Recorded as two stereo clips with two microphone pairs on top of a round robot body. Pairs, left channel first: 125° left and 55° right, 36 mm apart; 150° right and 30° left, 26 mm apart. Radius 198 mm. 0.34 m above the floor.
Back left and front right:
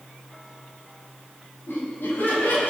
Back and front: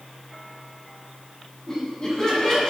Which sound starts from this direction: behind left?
Laughter, at 1.7 s.